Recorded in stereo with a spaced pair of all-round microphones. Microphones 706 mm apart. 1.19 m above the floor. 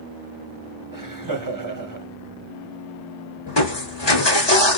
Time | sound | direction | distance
0.9 | laughter | 30° right (ahead or behind) | 1.1 m
3.5 | crushing | 35° left (ahead or behind) | 1.4 m